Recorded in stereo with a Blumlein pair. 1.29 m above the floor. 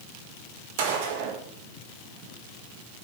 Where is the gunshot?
50° right, 1.7 m.